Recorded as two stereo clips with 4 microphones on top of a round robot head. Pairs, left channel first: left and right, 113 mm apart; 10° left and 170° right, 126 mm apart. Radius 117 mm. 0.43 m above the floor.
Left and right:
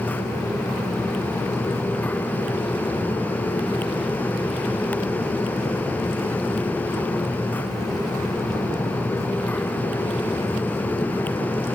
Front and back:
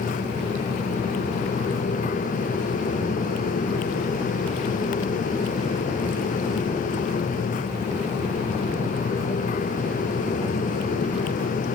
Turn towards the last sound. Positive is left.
No sound to turn to.